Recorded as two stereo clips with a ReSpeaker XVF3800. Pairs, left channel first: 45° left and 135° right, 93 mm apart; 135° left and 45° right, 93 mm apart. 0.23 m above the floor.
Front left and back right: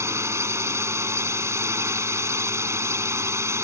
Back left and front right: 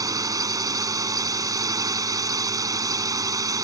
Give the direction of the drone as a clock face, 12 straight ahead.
3 o'clock.